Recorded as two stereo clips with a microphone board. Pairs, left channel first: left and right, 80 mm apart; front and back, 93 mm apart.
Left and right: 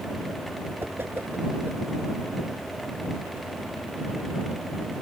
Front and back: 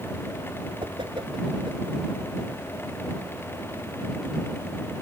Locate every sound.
0.8 s a whoosh: 150° right